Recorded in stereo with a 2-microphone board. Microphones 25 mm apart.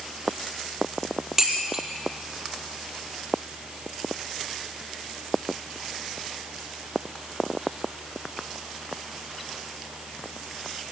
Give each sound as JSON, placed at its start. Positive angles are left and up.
{"t": 1.4, "sound": "dishes clattering", "side_deg": -15, "distance_m": 5.0}